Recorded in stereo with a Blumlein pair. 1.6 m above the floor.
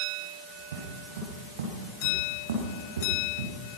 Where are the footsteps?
60° right, 7 m.